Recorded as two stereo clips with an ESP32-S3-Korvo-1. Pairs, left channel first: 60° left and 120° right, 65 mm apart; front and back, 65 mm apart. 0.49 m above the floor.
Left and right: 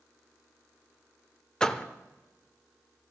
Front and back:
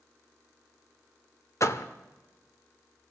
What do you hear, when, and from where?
1.6 s a door slam: 15° right, 0.9 m